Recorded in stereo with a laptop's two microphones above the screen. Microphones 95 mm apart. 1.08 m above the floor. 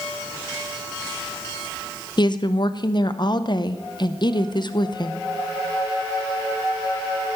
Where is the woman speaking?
50° left (ahead or behind), 0.6 m.